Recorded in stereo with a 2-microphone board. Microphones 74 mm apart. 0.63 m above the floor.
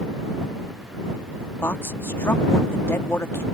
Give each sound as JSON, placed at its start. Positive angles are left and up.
{"t": 1.6, "sound": "a woman speaking", "side_deg": 35}